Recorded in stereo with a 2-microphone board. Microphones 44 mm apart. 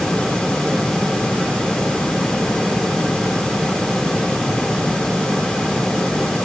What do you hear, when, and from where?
Only background noise.